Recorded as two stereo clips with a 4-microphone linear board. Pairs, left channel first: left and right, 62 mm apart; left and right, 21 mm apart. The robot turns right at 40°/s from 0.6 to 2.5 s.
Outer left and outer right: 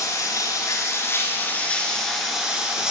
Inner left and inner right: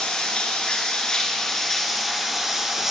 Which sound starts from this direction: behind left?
Running water, at 0.0 s.